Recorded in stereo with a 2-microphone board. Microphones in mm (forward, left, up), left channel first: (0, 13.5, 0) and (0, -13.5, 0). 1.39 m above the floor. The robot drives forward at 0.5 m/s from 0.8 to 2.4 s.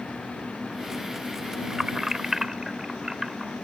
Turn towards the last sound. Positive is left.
turn(degrees=-15)  # may be behind; listen again after turning